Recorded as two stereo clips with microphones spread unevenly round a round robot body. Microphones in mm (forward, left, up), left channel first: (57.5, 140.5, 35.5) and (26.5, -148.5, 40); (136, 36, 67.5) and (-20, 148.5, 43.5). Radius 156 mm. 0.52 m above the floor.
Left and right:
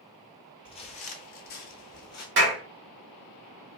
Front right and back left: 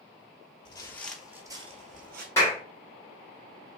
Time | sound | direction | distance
0.7 | footsteps | 15° left | 0.7 m
2.4 | a clap | 115° right | 1.2 m